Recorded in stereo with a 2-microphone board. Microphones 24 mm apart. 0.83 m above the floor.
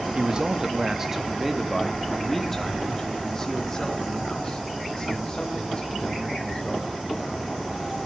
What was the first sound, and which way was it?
A man speaking, 40° right (ahead or behind).